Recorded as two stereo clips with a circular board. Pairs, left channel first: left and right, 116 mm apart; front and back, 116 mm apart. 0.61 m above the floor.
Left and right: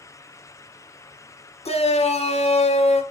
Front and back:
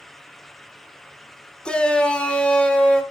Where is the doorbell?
No doorbell in this recording.